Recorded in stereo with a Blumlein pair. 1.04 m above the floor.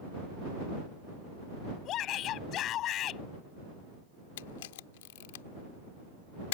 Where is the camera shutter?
55° left.